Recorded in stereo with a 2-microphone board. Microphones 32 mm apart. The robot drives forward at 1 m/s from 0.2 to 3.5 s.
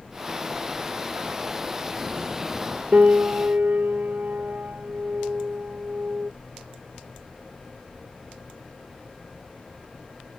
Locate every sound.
2.9 s a piano: 45° right (ahead or behind); by 6.3 s 65° right (ahead or behind)